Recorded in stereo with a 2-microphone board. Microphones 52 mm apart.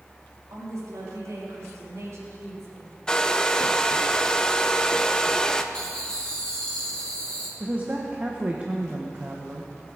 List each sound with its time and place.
0.5 s a woman speaking: 85° right, 3.5 m; by 3.0 s 65° right (ahead or behind), 4.5 m
3.1 s a hair dryer: 15° left (ahead or behind), 0.7 m
5.7 s laughter: 15° left (ahead or behind), 4 m
7.6 s a woman speaking: 30° right (ahead or behind), 1.3 m